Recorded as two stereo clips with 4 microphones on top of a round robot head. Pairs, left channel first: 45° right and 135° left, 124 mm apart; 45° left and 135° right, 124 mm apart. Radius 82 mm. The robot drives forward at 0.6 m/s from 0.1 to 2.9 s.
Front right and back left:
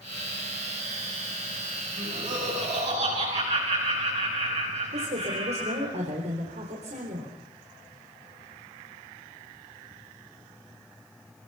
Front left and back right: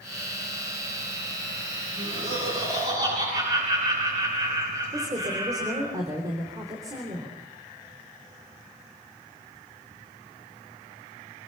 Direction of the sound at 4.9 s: 165° left.